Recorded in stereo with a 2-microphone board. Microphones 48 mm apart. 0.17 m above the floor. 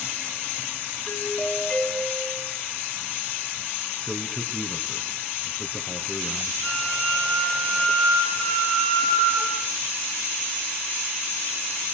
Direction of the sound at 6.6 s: 25° left (ahead or behind).